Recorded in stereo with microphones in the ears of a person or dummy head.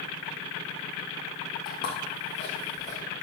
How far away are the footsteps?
About 3 m.